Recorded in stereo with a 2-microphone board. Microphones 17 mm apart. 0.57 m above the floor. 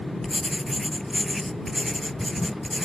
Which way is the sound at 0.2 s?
10° left (ahead or behind).